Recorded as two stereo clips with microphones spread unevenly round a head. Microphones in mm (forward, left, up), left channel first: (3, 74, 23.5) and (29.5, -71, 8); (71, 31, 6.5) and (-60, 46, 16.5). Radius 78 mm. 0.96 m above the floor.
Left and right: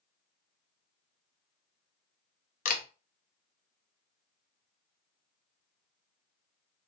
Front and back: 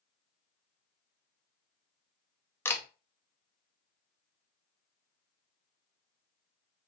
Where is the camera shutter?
65° left, 0.6 m.